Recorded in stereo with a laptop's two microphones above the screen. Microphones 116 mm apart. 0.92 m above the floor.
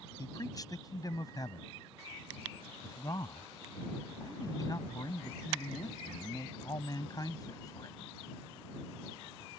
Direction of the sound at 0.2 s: 35° left (ahead or behind).